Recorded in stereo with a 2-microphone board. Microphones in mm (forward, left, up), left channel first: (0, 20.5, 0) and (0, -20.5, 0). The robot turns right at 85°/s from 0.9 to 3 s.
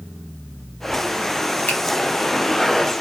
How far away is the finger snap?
About 0.9 m.